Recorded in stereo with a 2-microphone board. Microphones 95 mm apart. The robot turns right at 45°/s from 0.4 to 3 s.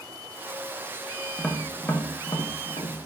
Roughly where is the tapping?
Centre.